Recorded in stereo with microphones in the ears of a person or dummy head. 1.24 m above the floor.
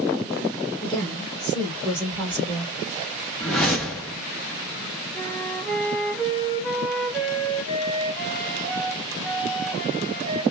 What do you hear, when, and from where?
0.8 s a woman speaking: 25° left (ahead or behind), 0.8 m; by 2.7 s 15° right (ahead or behind), 2 m
3.4 s a whoosh: 5° left (ahead or behind), 0.5 m
5.1 s a flute: 5° left (ahead or behind), 1.6 m